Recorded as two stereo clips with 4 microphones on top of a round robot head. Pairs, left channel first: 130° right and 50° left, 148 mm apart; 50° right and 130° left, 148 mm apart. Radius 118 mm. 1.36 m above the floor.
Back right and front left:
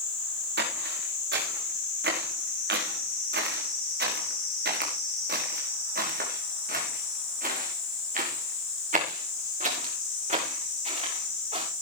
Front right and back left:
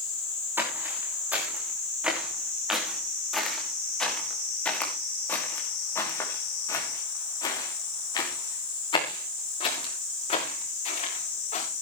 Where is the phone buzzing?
No phone buzzing in this recording.